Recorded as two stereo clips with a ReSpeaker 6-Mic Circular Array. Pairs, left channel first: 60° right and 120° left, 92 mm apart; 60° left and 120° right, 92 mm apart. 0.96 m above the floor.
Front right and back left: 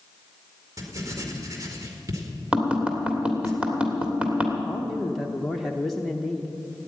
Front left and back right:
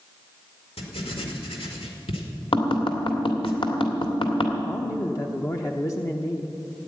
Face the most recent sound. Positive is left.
turn(degrees=30)